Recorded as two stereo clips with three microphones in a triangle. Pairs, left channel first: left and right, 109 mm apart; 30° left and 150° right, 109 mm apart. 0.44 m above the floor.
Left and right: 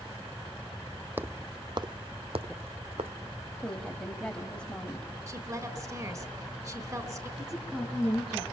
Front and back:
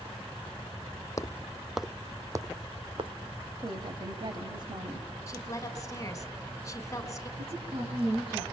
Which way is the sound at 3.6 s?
170° left.